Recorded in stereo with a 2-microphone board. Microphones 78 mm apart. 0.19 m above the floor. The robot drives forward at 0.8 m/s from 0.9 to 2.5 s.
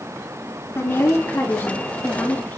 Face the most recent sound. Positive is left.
turn(degrees=25)  # may be behind; listen again after turning